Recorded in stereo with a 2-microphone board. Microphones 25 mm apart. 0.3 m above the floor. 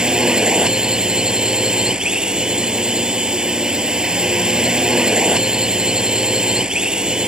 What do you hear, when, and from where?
0.0 s a drone: 35° right (ahead or behind)